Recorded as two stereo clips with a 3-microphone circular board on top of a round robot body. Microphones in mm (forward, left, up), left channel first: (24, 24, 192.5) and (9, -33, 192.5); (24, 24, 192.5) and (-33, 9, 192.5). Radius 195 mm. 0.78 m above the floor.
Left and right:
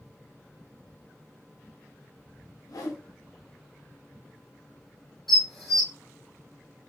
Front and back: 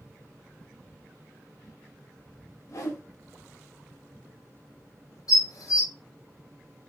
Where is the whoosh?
50° left, 0.9 m.